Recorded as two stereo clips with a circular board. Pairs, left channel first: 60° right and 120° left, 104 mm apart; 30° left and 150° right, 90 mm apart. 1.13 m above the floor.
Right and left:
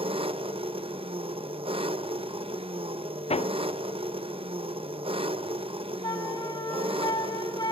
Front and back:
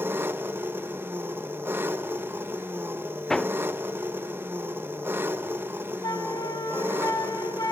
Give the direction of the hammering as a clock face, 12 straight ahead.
2 o'clock.